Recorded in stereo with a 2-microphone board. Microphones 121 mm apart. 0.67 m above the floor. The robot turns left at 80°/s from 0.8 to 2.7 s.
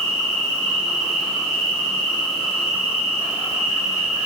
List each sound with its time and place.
0.0 s an insect: 155° right, 1.3 m; by 4.3 s 50° left, 1.3 m